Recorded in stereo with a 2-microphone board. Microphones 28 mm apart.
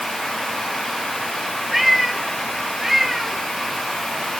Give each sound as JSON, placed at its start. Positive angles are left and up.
{"t": 1.7, "sound": "a cat meowing", "side_deg": -5}